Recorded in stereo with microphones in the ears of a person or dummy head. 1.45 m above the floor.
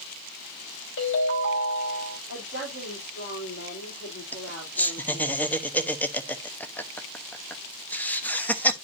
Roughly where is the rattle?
I don't hear a rattle.